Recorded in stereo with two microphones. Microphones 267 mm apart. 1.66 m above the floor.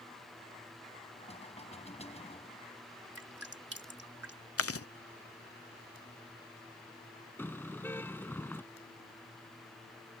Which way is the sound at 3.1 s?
60° right (ahead or behind).